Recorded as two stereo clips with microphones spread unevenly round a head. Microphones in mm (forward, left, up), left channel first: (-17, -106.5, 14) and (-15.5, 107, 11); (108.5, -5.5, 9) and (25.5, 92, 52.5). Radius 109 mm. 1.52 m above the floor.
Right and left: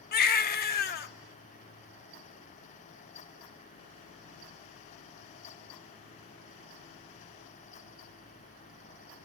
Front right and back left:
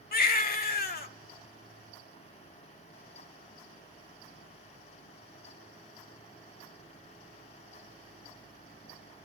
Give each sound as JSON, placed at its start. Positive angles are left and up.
{"t": 0.1, "sound": "a baby crying", "azimuth_deg": -55, "distance_m": 1.4}